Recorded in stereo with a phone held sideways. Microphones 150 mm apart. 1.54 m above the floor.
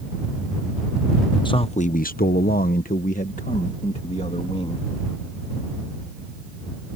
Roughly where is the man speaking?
Left.